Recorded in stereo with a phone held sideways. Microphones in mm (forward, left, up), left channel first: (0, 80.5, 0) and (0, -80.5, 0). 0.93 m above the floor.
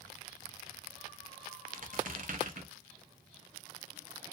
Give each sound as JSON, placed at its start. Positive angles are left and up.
{"t": 1.7, "sound": "a squeak", "side_deg": -55, "distance_m": 0.7}